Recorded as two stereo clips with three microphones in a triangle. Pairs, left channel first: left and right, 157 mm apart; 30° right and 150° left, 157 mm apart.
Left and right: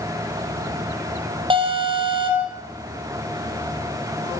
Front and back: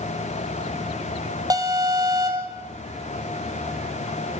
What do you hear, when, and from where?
1.5 s an alarm: 145° right, 4.5 m